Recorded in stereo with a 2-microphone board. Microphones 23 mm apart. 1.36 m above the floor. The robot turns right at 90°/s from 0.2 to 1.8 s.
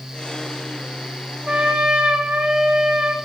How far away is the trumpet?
About 4 m.